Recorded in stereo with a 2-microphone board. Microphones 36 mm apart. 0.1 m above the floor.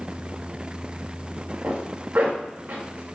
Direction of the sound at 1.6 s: 45° right (ahead or behind).